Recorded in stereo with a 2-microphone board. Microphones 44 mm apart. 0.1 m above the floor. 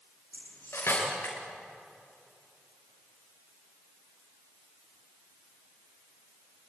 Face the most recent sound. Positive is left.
turn(degrees=75)  # may be behind; listen again after turning